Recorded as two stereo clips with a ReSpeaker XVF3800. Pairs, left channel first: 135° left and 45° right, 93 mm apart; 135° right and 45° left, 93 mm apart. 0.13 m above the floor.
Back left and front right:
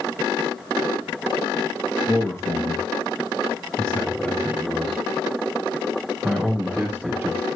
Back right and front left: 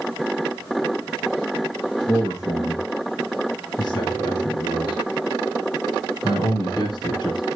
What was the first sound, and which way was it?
A man speaking, straight behind.